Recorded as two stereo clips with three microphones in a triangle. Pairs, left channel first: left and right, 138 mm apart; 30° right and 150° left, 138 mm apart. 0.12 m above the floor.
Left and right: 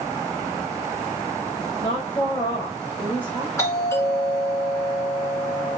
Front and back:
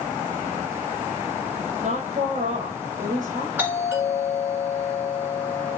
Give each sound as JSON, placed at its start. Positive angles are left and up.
{"t": 1.8, "sound": "a woman speaking", "azimuth_deg": 135, "distance_m": 3.5}
{"t": 3.6, "sound": "a doorbell", "azimuth_deg": 105, "distance_m": 2.0}